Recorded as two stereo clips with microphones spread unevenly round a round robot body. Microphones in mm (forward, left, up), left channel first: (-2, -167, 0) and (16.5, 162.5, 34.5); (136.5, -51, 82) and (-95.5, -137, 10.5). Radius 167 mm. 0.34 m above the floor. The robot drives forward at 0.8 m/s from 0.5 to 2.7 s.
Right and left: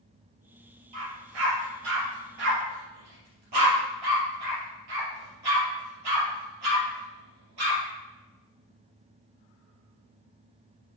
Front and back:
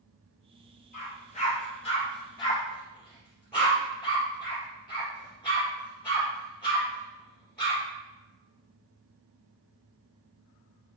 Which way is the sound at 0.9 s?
85° left.